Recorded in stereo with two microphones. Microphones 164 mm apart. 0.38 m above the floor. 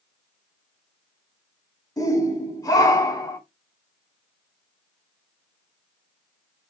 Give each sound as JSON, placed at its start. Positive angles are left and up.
{"t": 2.0, "sound": "a shout", "side_deg": 20, "distance_m": 1.3}